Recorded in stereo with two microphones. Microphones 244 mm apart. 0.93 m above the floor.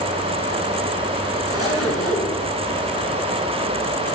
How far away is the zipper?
About 7 m.